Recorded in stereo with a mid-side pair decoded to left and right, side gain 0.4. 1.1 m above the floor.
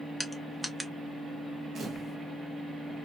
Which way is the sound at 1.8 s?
45° right.